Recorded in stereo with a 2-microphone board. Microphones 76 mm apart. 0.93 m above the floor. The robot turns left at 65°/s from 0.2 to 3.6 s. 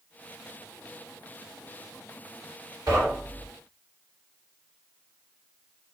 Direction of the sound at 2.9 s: 55° right (ahead or behind).